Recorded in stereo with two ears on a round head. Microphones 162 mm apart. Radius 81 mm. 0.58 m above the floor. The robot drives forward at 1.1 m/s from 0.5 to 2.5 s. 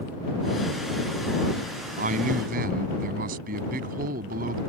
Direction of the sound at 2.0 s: 45° right (ahead or behind).